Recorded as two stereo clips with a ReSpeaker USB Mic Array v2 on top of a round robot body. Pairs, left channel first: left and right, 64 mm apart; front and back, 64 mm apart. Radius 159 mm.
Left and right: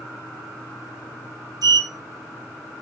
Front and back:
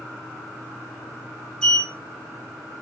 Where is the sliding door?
80° right, 2.5 m.